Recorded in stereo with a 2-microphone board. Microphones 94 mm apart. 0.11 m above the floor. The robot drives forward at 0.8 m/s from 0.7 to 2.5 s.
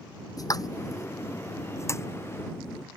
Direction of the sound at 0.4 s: 40° left (ahead or behind).